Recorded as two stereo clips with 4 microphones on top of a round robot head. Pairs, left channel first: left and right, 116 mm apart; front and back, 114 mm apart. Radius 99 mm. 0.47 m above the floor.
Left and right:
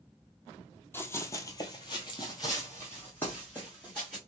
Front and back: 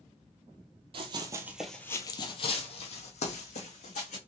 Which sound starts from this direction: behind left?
Running footsteps, at 0.9 s.